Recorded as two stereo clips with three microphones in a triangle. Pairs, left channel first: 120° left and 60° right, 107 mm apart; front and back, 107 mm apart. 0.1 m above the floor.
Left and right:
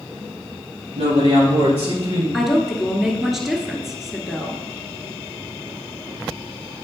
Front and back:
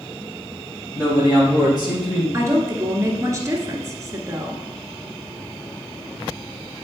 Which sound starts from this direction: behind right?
A woman speaking, at 2.3 s.